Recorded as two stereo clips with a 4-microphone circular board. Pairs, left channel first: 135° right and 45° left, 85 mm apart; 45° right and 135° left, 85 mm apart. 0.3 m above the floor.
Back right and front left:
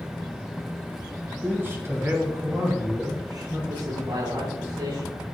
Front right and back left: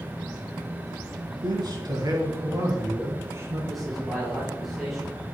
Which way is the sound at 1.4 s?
110° left.